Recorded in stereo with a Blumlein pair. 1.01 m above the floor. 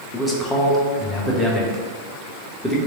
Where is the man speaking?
5° left, 0.9 m.